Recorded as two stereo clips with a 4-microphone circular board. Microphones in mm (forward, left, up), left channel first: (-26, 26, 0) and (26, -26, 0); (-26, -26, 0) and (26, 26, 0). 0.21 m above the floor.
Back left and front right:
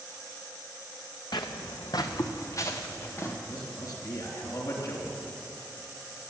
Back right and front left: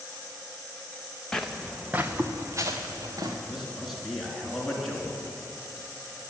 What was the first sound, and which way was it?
Footsteps, 145° left.